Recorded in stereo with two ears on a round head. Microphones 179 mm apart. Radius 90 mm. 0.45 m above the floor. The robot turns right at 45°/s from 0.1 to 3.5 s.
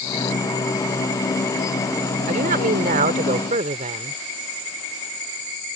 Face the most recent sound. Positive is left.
turn(degrees=-55)